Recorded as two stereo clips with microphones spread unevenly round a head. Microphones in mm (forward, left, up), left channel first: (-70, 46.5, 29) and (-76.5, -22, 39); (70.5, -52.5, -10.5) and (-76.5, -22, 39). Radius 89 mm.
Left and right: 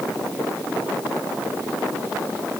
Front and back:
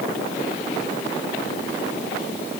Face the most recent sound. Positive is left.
No sound to turn to.